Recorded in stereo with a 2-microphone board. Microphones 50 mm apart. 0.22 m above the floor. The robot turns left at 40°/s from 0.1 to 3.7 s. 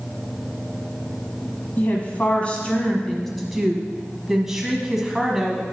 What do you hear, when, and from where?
1.8 s a woman speaking: 65° left, 1.3 m; by 5.6 s 10° right, 1.3 m